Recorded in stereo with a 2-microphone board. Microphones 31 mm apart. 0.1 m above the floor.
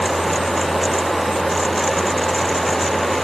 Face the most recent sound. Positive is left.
No sound to turn to.